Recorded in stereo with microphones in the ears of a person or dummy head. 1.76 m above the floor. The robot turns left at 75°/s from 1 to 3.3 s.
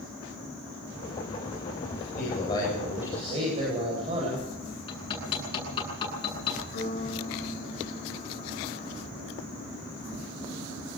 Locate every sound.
1.9 s a man speaking: 70° left, 9.5 m; by 4.5 s 35° right, 9.5 m
4.9 s hammering: 30° left (ahead or behind), 9.5 m
6.7 s a piano: 45° left (ahead or behind), 8 m